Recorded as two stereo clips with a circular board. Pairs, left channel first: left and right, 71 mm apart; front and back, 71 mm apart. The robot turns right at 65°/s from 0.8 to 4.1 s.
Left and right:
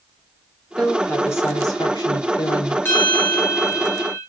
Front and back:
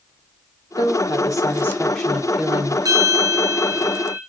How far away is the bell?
About 8.5 m.